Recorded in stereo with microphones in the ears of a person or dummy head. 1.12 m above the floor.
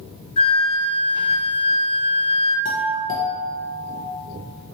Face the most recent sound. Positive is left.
turn(degrees=45)  # may be behind; listen again after turning